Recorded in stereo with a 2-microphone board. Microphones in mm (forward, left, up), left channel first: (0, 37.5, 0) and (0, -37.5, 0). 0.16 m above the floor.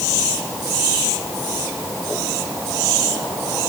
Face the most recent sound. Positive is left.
No sound to turn to.